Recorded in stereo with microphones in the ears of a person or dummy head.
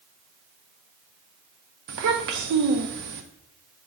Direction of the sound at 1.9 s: 60° right (ahead or behind).